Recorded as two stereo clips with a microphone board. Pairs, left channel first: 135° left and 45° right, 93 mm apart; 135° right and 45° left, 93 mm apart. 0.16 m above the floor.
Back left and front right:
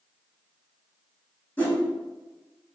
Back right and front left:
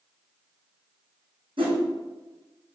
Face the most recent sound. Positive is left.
turn(degrees=70)